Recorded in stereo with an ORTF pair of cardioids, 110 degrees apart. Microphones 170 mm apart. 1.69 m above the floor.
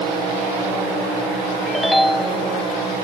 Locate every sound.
1.7 s a ringtone: straight ahead